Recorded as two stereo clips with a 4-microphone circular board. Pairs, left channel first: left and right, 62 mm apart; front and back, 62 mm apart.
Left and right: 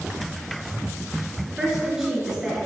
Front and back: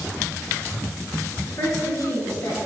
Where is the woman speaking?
10° right, 2.5 m; by 2.6 s 5° right, 3 m.